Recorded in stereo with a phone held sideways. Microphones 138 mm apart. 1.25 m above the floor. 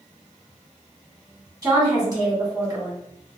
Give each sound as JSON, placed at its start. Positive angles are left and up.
{"t": 1.6, "sound": "a woman speaking", "side_deg": -25, "distance_m": 1.4}